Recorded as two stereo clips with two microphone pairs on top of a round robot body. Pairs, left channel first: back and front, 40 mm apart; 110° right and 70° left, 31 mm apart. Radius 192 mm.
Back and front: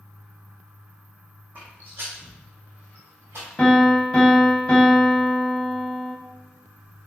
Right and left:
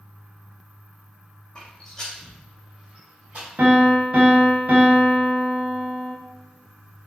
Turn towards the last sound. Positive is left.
turn(degrees=105)